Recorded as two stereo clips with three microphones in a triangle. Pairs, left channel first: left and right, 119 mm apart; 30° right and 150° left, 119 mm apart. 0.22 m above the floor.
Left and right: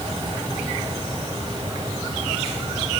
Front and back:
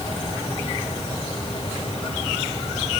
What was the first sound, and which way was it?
Only background noise.